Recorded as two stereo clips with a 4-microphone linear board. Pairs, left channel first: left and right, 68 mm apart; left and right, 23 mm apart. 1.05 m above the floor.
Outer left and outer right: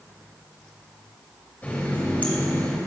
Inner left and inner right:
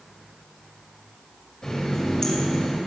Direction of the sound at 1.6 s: 25° left (ahead or behind).